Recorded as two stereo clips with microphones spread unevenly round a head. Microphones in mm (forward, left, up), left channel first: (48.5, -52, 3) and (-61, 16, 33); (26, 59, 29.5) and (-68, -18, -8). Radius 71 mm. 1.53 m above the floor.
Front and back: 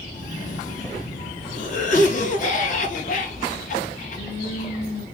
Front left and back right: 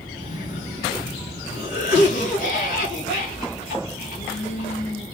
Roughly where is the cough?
Ahead.